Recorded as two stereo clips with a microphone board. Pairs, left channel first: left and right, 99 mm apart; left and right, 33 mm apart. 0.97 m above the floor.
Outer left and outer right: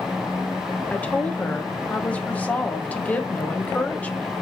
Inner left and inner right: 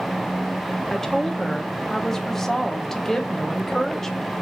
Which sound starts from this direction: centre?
A woman speaking, at 0.9 s.